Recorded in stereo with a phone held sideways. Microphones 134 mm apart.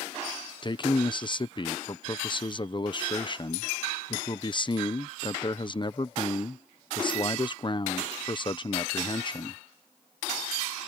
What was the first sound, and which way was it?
A man speaking, 35° left (ahead or behind).